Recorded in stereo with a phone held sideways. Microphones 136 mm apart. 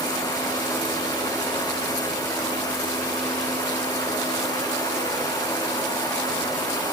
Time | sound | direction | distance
0.0 | a fan | 30° left (ahead or behind) | 8 m